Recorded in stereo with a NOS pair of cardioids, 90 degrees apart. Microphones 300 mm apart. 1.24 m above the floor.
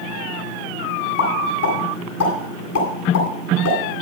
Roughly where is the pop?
Ahead left.